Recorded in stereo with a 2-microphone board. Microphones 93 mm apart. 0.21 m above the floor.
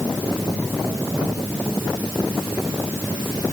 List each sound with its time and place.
Only background noise.